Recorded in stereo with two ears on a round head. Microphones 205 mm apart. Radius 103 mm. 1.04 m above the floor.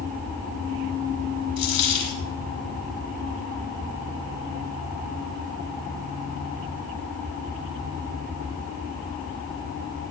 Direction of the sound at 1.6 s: 80° left.